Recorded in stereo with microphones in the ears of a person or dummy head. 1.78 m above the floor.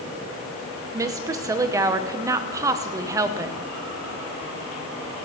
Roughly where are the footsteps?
I don't hear footsteps.